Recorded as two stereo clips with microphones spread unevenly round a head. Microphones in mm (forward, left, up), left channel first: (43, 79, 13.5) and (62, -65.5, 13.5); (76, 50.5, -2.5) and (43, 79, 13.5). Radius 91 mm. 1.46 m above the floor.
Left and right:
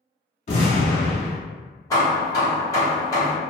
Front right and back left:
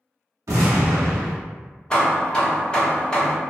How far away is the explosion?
About 0.8 m.